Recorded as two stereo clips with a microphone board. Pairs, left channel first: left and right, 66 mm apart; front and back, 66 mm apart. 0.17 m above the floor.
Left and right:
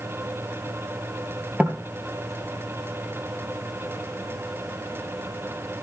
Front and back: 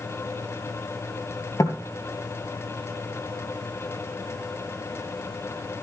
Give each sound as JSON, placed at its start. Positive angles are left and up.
{"t": 1.6, "sound": "knocking", "azimuth_deg": -25, "distance_m": 2.5}